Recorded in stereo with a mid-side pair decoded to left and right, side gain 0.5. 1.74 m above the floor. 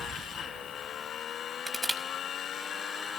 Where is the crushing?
Straight ahead, 5 m.